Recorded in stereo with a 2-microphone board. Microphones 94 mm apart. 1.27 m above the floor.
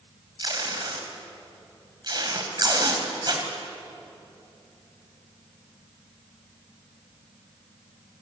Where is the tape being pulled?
50° right (ahead or behind), 3.5 m.